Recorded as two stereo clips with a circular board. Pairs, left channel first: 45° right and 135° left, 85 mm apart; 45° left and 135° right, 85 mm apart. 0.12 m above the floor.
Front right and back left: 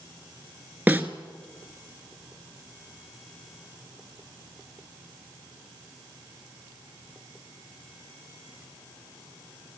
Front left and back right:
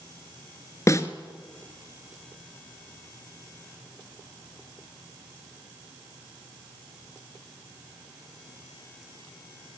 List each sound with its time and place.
0.9 s a snare drum: 75° left, 1.4 m